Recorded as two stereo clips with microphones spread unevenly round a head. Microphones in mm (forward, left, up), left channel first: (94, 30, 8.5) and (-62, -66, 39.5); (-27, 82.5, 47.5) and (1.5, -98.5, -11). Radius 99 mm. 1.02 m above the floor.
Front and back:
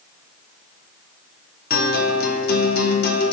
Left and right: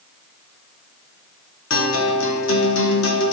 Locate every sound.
1.7 s a guitar: 75° left, 1.6 m